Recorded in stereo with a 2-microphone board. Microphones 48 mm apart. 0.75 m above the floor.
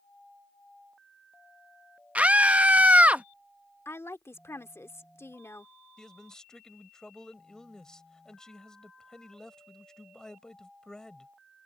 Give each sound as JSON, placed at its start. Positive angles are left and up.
{"t": 2.1, "sound": "a scream", "side_deg": -25}
{"t": 3.9, "sound": "a woman speaking", "side_deg": 70}
{"t": 6.0, "sound": "a man speaking", "side_deg": 15}